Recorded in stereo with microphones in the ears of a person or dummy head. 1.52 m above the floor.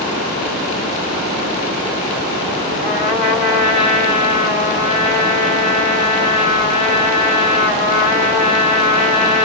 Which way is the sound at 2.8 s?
25° left (ahead or behind).